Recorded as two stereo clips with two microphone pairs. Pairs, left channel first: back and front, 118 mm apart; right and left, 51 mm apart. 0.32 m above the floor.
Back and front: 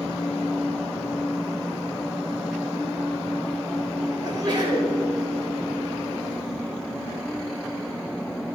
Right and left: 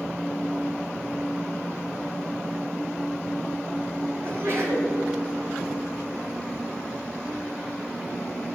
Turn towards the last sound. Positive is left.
turn(degrees=55)